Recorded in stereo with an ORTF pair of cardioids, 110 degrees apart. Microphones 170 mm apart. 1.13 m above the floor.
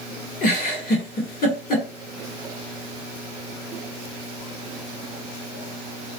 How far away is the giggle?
About 1.6 m.